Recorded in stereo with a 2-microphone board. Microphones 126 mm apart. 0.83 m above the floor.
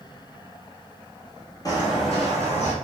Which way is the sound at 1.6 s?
30° left (ahead or behind).